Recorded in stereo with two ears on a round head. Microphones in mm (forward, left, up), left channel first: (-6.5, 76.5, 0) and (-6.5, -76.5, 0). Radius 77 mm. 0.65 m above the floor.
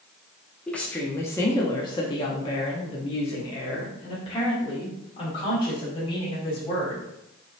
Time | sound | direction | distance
0.7 | a woman speaking | 5° left (ahead or behind) | 1.1 m